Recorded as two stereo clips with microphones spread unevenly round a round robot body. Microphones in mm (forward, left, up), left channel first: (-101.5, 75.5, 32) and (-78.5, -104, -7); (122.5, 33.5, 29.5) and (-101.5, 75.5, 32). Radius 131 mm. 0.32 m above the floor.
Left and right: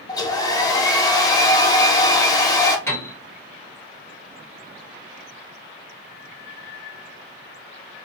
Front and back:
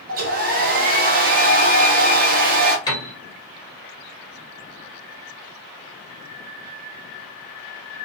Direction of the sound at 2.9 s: 10° left.